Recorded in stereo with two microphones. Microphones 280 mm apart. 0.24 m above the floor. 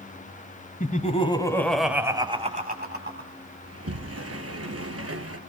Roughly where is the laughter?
Left.